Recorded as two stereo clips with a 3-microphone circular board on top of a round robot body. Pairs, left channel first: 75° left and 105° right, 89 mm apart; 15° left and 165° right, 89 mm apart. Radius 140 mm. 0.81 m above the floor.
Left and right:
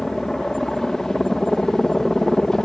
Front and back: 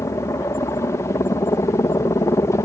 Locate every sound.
0.0 s a helicopter: 5° right